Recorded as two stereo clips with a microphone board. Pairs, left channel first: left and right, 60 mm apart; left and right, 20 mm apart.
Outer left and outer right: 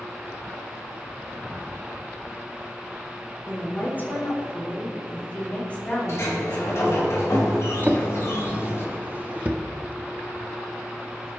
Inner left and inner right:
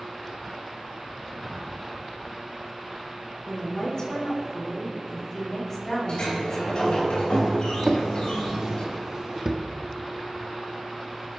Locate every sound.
3.5 s a woman speaking: 35° left (ahead or behind), 5 m; by 7.1 s 15° left (ahead or behind), 5 m
6.1 s a sliding door: 50° left (ahead or behind), 4 m
7.8 s a drawer: 25° right (ahead or behind), 1.0 m